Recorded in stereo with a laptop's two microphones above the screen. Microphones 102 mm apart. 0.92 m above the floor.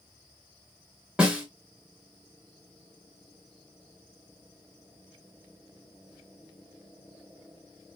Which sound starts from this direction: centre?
A snare drum, at 1.2 s.